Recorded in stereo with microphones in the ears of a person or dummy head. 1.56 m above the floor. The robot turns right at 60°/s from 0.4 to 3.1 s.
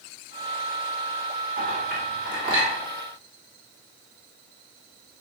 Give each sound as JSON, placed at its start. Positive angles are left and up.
{"t": 1.6, "sound": "a clink", "side_deg": -45, "distance_m": 1.4}